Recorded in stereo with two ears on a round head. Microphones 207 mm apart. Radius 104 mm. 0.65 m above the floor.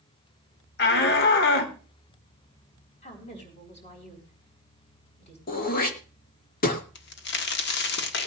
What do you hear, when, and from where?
0.8 s a shout: 50° left (ahead or behind), 1.9 m
3.0 s a woman speaking: 30° left (ahead or behind), 4.5 m
5.5 s throat clearing: 40° left (ahead or behind), 1.6 m
7.0 s a crack: 50° left (ahead or behind), 1.1 m